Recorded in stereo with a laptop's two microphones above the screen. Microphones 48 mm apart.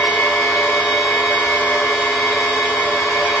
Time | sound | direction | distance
0.0 | a machine running | 70° left (ahead or behind) | 2.5 m